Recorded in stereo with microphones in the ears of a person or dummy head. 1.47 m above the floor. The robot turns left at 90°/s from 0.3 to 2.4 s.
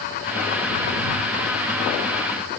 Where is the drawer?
I don't hear a drawer.